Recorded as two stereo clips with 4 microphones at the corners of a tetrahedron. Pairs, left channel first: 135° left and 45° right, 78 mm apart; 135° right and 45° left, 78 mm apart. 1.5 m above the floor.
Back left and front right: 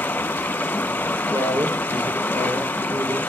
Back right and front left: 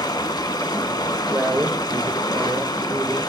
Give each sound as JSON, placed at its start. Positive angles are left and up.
{"t": 0.0, "sound": "running water", "azimuth_deg": -160, "distance_m": 1.0}
{"t": 1.3, "sound": "a man speaking", "azimuth_deg": -5, "distance_m": 1.1}